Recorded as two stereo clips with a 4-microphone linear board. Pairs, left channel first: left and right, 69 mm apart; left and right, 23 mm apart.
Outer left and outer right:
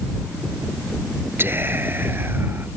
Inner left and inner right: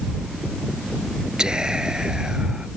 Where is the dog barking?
I don't hear a dog barking.